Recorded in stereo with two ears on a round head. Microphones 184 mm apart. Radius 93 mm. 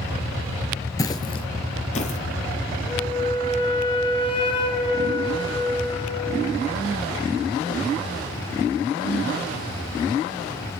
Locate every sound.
1.0 s footsteps: 15° left (ahead or behind), 0.8 m; by 2.2 s 35° left (ahead or behind), 1.1 m
2.9 s a flute: 25° left (ahead or behind), 1.1 m